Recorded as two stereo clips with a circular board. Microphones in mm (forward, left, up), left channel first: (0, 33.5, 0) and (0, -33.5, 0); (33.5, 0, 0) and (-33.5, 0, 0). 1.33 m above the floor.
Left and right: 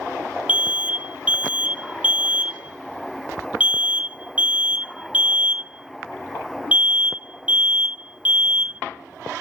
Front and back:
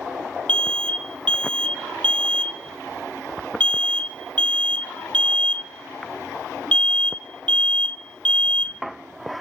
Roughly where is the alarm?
Ahead right.